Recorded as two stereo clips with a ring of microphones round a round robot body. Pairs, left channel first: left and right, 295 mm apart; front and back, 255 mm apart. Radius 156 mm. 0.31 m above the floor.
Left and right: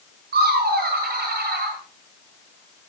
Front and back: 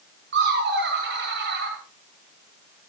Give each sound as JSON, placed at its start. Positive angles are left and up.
{"t": 0.3, "sound": "laughter", "azimuth_deg": -140, "distance_m": 1.4}